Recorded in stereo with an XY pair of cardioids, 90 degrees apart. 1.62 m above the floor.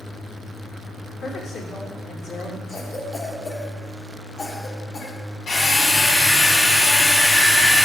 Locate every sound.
1.2 s a woman speaking: 65° left, 2 m
2.7 s a cough: 55° left, 1.6 m
5.5 s a drill: 65° left, 3 m